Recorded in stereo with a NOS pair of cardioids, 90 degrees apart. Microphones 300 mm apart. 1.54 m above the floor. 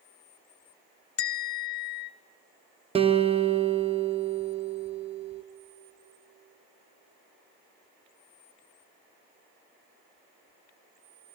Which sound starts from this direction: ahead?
A guitar, at 3.0 s.